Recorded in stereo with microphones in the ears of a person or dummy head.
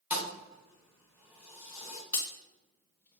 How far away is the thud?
About 1.5 m.